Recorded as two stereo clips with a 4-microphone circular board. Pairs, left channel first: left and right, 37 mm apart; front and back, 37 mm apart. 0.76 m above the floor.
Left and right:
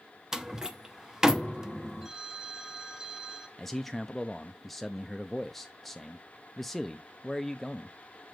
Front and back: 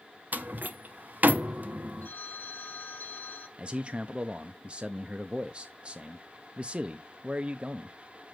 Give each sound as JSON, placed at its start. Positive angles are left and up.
{"t": 0.3, "sound": "a door slam", "azimuth_deg": -165, "distance_m": 0.8}
{"t": 2.0, "sound": "a phone ringing", "azimuth_deg": -20, "distance_m": 1.7}
{"t": 3.6, "sound": "a man speaking", "azimuth_deg": 170, "distance_m": 0.5}